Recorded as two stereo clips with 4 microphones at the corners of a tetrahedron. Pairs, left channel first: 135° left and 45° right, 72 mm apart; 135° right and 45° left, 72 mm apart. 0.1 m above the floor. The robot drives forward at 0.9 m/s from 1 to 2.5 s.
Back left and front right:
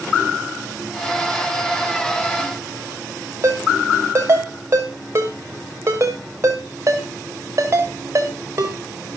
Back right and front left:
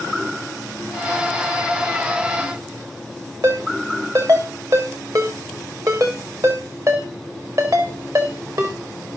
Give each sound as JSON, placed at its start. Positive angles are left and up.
{"t": 3.4, "sound": "a ringtone", "azimuth_deg": 5, "distance_m": 5.5}